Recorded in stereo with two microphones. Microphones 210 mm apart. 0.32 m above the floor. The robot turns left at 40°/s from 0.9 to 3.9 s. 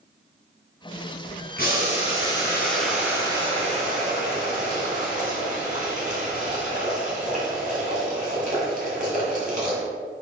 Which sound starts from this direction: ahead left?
Boiling, at 1.6 s.